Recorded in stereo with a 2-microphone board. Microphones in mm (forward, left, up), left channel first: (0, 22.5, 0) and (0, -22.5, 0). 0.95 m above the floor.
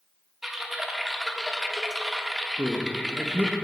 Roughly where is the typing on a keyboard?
Centre.